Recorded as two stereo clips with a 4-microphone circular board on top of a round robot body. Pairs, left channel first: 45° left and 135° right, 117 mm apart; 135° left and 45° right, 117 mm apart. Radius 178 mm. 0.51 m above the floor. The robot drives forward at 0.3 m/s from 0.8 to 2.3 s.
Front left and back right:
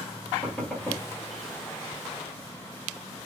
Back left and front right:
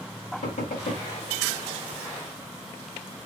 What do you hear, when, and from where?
0.4 s knocking: 125° left, 1.8 m